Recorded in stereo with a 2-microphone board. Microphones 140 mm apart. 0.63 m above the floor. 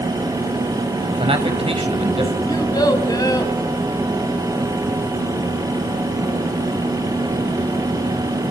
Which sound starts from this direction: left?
A child speaking, at 2.5 s.